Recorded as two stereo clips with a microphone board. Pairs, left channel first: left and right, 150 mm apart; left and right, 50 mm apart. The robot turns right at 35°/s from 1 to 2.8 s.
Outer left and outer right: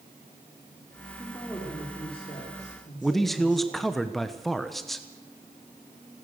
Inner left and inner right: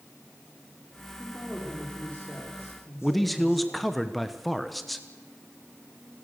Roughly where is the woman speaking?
Ahead.